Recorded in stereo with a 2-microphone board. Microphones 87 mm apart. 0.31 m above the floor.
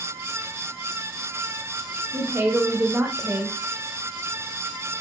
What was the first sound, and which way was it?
A woman speaking, 30° right (ahead or behind).